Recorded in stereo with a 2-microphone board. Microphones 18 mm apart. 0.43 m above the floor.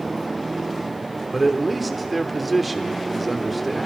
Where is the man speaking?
5° right (ahead or behind), 0.9 m.